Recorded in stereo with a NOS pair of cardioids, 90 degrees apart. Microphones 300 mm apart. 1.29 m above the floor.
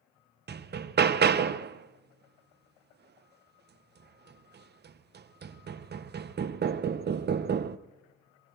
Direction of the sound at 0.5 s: 35° right.